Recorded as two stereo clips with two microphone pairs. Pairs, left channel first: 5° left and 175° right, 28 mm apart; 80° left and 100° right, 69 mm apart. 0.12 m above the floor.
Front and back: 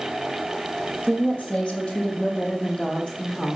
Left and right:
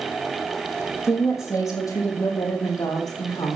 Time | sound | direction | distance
1.0 | a woman speaking | 45° left | 4 m